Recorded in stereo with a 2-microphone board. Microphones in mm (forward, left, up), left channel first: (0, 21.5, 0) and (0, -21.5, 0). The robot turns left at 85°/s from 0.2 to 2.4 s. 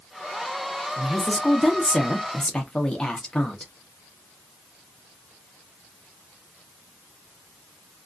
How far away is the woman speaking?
About 0.8 m.